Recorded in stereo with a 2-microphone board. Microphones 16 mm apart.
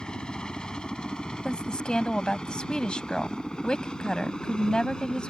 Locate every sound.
0.0 s a helicopter: 60° left (ahead or behind); by 5.3 s 55° left (ahead or behind)
1.4 s a woman speaking: 65° left (ahead or behind)